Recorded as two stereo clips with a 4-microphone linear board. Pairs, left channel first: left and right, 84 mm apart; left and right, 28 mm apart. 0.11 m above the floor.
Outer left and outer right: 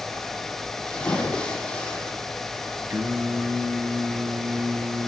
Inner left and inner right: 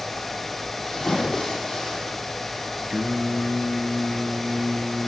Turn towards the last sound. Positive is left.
turn(degrees=-30)  # may be behind; listen again after turning